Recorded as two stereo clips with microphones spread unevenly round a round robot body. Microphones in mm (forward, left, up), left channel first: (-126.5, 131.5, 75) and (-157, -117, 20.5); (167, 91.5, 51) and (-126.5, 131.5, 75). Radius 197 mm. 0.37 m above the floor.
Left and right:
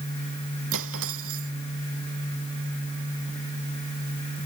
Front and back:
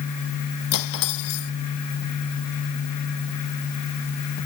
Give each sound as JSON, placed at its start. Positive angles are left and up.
{"t": 0.7, "sound": "cutlery clinking", "azimuth_deg": -45}